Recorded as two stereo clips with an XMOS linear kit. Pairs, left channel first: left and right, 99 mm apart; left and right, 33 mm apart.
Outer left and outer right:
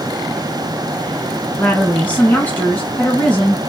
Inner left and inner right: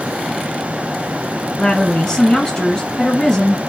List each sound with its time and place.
1.6 s a woman speaking: 15° left (ahead or behind), 1.5 m